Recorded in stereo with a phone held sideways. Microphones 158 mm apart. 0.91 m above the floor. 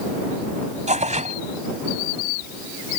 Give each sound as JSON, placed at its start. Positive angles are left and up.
{"t": 0.9, "sound": "tearing paper", "side_deg": -50}